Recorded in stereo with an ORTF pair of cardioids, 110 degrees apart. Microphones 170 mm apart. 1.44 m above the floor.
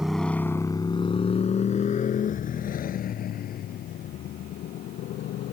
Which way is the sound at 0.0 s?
Straight ahead.